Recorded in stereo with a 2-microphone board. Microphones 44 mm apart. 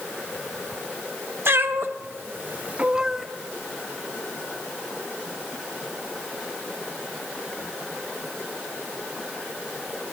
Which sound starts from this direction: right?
A cat meowing, at 1.4 s.